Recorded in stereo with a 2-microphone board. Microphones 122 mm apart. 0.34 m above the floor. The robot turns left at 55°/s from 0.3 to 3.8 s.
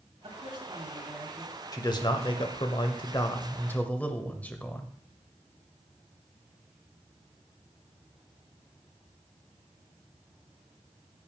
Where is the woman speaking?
125° right, 3.5 m; by 1.6 s 165° left, 3.5 m.